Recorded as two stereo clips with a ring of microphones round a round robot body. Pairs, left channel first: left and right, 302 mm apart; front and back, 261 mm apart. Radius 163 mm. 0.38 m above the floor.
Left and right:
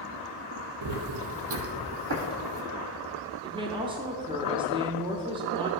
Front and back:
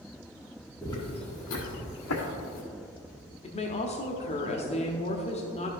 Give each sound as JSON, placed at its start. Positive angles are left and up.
{"t": 0.8, "sound": "footsteps", "azimuth_deg": -80, "distance_m": 0.9}
{"t": 3.4, "sound": "a woman speaking", "azimuth_deg": -35, "distance_m": 0.8}